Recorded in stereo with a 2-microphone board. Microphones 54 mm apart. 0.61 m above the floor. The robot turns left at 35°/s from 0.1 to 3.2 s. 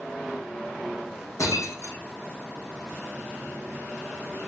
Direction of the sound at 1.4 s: 85° left.